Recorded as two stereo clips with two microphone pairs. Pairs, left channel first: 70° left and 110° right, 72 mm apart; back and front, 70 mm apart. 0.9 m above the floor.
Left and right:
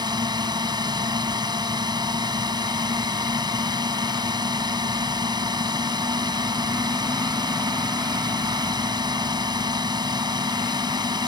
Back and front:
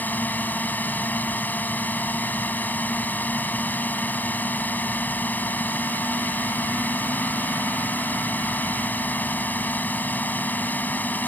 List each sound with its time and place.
0.0 s a drone: 115° right